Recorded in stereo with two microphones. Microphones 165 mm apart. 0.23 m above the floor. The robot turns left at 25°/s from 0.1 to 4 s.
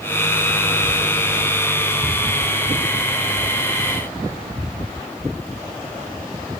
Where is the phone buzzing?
I don't hear a phone buzzing.